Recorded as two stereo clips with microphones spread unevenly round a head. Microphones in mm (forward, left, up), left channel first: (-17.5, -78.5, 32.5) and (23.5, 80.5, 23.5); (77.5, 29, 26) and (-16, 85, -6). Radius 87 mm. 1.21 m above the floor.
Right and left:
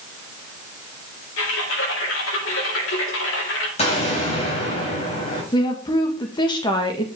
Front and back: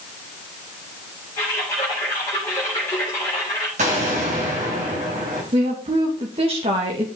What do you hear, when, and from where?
1.4 s typing on a keyboard: 105° right, 3.5 m
3.8 s an explosion: 160° right, 4 m
5.5 s a woman speaking: 170° right, 1.8 m